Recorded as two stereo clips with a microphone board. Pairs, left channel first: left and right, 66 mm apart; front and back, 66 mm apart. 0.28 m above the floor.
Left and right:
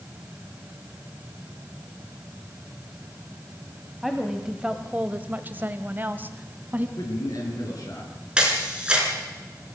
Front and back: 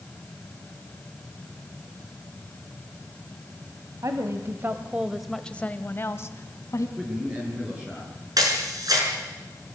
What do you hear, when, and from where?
4.0 s a woman speaking: 175° right, 1.5 m; by 6.9 s 30° right, 1.9 m
7.0 s a man speaking: 105° left, 4.5 m
8.4 s a camera shutter: 165° right, 4 m